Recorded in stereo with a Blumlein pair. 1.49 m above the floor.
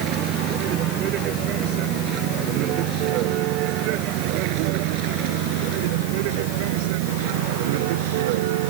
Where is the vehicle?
35° right; by 8.7 s 50° right.